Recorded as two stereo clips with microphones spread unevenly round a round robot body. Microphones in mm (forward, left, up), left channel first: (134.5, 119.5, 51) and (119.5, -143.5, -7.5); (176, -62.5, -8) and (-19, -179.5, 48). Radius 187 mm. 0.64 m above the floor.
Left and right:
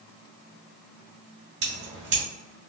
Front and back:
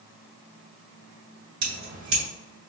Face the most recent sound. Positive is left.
turn(degrees=-160)